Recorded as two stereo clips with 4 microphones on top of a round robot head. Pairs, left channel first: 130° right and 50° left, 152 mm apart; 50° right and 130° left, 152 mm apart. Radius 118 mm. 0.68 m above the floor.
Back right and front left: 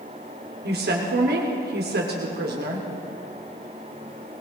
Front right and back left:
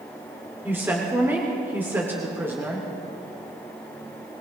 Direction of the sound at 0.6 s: 50° left.